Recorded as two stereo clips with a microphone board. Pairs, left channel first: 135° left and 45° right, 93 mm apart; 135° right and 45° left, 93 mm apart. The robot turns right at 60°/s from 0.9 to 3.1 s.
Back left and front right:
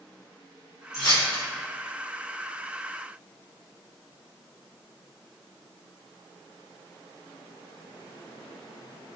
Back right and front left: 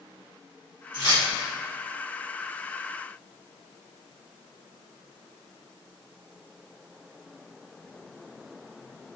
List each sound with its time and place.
0.9 s keys jangling: 80° left, 1.4 m; by 1.2 s 95° left, 1.4 m